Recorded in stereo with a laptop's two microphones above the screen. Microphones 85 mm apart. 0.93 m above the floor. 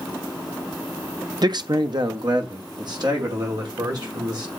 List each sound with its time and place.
1.4 s a man speaking: 50° right (ahead or behind), 0.5 m